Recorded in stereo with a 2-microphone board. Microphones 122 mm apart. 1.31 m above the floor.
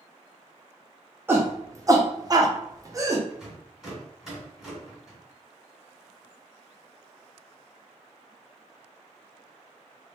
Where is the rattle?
5° right (ahead or behind), 1.9 m.